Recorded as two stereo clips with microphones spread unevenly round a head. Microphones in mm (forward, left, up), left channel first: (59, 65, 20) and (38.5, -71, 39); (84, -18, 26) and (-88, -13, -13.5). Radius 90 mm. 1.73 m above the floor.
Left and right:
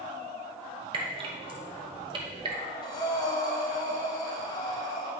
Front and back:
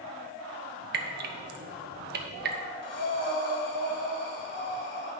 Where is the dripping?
150° right, 0.9 m.